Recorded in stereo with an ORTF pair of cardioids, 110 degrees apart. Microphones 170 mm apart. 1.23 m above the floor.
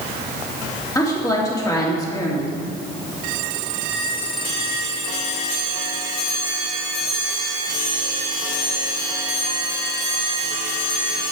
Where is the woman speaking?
20° left, 2.5 m.